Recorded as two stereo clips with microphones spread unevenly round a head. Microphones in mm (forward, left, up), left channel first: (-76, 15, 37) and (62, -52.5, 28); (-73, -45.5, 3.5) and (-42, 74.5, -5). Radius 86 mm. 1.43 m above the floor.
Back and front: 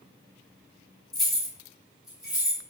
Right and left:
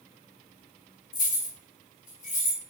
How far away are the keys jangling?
About 0.8 m.